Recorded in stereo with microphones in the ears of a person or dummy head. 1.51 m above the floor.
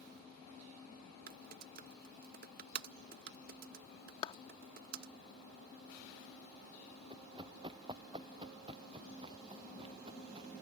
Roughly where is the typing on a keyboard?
Right.